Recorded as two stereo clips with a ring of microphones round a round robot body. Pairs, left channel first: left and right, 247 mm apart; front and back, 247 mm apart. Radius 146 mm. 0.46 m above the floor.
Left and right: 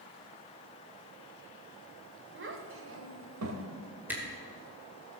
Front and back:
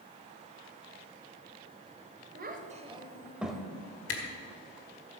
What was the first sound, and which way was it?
A child speaking, 130° right.